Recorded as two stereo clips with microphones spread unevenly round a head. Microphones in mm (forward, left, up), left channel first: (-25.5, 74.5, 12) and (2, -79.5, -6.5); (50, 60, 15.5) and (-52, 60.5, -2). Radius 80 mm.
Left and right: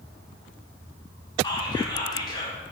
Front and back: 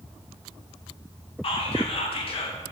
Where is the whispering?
35° left, 0.9 m.